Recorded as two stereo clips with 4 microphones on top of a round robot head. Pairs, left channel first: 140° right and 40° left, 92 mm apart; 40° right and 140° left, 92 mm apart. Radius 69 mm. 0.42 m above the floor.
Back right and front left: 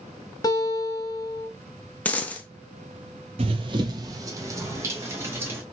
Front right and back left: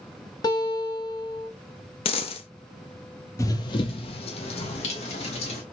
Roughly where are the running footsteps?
Ahead.